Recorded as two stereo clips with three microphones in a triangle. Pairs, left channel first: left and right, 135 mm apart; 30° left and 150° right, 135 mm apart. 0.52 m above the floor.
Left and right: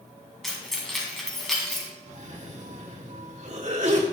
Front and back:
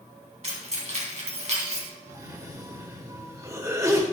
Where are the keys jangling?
Straight behind, 3 m.